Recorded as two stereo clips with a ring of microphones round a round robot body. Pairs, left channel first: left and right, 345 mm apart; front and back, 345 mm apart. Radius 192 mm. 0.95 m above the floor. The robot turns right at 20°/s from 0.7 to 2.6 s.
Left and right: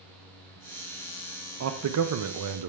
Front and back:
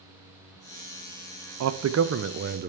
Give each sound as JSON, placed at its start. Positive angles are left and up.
{"t": 1.6, "sound": "a man speaking", "azimuth_deg": -140, "distance_m": 0.5}